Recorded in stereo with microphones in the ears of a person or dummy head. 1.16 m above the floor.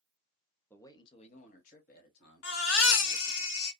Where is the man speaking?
10° left (ahead or behind), 0.6 m; by 3.4 s 70° left (ahead or behind), 1.9 m.